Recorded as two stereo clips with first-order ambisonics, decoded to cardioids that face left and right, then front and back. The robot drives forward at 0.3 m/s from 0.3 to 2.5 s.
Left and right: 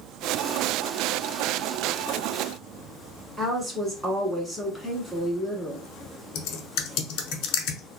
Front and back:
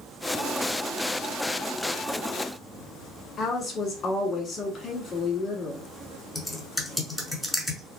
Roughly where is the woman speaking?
Ahead right.